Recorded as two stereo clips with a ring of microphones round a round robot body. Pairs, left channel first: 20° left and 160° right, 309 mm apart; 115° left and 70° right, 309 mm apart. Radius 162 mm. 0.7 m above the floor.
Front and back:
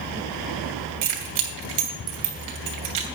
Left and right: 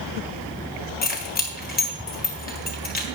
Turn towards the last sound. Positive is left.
turn(degrees=175)